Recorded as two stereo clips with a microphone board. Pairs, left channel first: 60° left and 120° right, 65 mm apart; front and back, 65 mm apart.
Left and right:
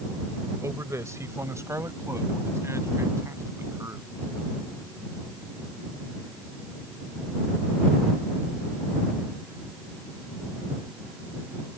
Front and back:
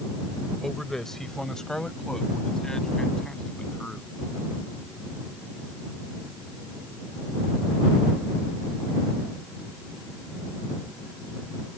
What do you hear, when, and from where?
0.6 s a man speaking: 85° right; by 4.1 s 75° right